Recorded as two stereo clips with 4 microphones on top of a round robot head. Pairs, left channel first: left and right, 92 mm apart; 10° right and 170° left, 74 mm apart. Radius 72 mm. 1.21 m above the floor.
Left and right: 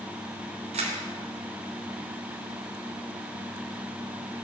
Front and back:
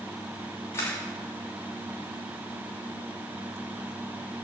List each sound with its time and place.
0.7 s a camera shutter: 75° right, 2.5 m